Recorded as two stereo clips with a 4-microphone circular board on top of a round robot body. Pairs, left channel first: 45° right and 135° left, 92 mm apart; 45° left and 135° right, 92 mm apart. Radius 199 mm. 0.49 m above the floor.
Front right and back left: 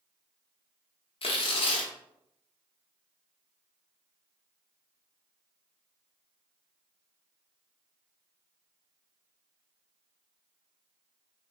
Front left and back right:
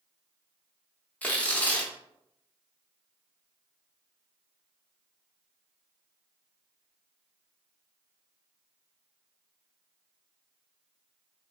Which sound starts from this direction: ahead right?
Tearing paper, at 1.2 s.